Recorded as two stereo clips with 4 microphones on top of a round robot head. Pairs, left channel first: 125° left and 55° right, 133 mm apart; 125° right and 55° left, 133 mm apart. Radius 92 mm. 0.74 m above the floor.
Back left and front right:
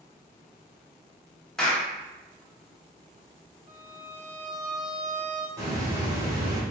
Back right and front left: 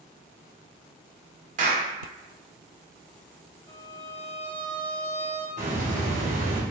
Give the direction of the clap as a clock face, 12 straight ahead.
11 o'clock.